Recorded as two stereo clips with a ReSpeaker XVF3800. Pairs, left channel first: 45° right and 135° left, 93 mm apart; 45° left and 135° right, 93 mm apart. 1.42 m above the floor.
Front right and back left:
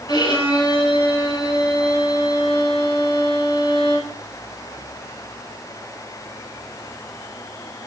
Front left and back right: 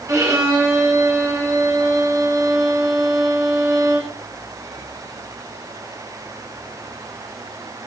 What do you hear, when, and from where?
0.1 s a violin: 80° right, 7.5 m